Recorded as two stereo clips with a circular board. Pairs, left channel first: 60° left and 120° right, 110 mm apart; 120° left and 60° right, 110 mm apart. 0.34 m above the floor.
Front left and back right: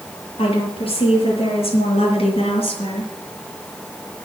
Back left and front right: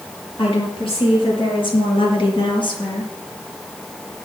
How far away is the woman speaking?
About 7 m.